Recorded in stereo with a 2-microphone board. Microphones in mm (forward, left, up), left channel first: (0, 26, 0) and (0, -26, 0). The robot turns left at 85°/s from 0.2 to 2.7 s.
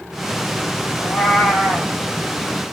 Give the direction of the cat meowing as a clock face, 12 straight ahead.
8 o'clock.